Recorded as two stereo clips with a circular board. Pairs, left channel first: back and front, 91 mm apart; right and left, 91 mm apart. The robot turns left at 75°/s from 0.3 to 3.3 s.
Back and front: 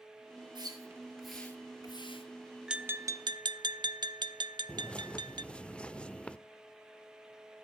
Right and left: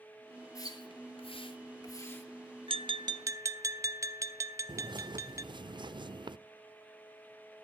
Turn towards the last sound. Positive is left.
turn(degrees=100)